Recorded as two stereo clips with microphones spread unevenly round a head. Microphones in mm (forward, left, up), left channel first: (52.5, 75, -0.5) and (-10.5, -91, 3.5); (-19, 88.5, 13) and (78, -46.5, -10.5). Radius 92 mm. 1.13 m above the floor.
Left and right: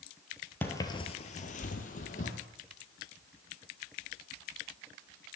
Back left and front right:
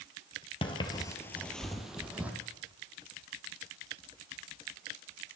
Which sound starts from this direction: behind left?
Footsteps, at 0.6 s.